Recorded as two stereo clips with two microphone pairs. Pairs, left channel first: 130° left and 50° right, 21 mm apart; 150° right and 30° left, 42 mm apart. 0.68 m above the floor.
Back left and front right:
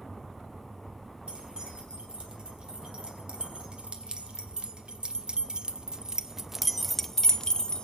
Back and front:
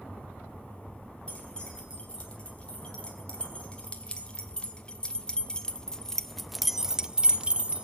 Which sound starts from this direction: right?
Keys jangling, at 1.3 s.